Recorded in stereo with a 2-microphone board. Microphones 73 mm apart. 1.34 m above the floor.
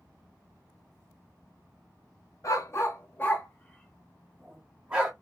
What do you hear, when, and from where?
2.4 s a dog barking: 45° left (ahead or behind), 1.0 m; by 5.1 s 15° right (ahead or behind), 1.3 m